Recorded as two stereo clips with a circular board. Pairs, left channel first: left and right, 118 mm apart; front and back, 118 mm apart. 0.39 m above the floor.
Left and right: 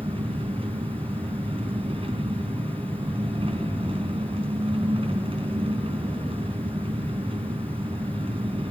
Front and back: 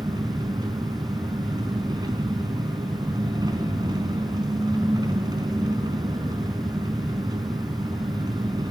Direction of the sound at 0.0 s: 125° right.